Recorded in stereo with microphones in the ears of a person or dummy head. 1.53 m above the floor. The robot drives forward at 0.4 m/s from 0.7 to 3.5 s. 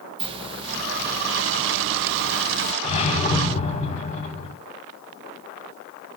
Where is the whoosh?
35° left (ahead or behind), 3 m.